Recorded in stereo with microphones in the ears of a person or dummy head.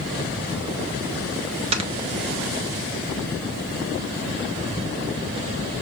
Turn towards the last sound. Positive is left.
turn(degrees=-30)  # may be behind; listen again after turning